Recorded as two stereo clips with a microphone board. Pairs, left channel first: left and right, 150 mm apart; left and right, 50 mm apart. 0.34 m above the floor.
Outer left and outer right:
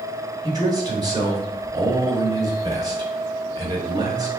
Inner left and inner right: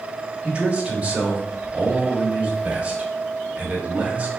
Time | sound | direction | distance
0.4 | a man speaking | 25° right (ahead or behind) | 0.9 m